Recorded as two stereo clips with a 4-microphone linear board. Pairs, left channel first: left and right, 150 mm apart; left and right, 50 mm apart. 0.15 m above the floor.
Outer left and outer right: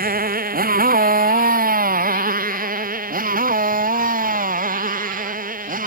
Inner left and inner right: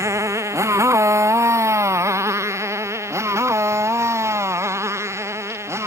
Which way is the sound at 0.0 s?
85° right.